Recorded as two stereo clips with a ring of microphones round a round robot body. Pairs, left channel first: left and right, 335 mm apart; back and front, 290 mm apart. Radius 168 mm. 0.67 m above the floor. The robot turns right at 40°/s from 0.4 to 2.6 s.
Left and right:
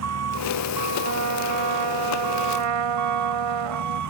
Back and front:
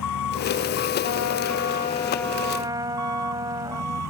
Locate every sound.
0.0 s an engine running: 135° right; by 4.1 s 50° right
1.0 s a trumpet: 145° right; by 4.0 s 80° right